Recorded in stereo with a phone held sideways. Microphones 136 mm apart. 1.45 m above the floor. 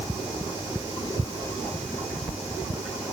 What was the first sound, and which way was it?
Only background noise.